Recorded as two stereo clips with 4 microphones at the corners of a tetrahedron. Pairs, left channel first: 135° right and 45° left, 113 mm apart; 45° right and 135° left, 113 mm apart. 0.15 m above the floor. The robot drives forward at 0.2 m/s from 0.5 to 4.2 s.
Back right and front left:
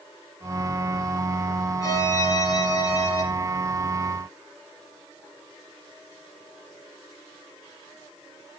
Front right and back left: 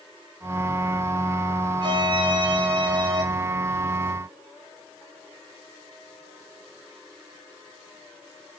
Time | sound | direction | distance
1.8 | a violin | 170° left | 1.2 m